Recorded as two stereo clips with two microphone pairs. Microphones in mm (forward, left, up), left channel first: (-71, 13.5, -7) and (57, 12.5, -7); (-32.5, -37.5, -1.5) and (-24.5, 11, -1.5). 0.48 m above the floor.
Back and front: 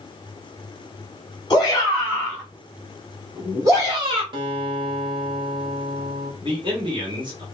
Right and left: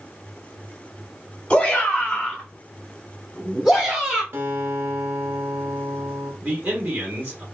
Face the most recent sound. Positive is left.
turn(degrees=35)